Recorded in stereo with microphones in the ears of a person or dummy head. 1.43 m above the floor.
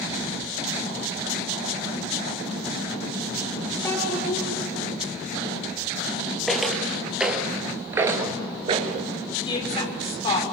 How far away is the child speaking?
About 3 m.